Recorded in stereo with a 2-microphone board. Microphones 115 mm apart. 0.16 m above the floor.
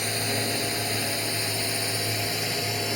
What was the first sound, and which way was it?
A drone, centre (ahead or behind).